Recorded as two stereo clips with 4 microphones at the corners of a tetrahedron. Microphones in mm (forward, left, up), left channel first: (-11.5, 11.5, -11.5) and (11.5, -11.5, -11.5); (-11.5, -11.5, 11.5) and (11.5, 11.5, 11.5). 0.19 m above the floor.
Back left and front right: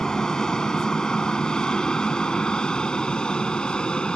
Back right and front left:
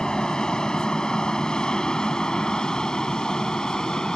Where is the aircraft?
175° right; by 4.2 s 175° left.